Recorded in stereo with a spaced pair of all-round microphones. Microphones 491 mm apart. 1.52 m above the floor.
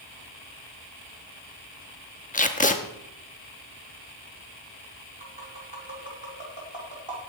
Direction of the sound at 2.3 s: 15° left (ahead or behind).